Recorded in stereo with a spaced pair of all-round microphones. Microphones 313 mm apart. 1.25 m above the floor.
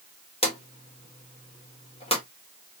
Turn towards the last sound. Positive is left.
turn(degrees=20)  # may be behind; listen again after turning